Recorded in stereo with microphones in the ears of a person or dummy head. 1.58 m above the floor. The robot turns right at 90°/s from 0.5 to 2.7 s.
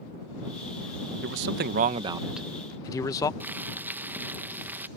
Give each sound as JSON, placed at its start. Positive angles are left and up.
{"t": 1.2, "sound": "a man speaking", "azimuth_deg": -105}
{"t": 3.4, "sound": "boiling", "side_deg": -15}